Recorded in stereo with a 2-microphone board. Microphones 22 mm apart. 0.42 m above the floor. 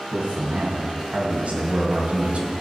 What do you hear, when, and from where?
0.1 s a man speaking: 70° right (ahead or behind), 3.5 m; by 2.5 s 60° right (ahead or behind), 2.5 m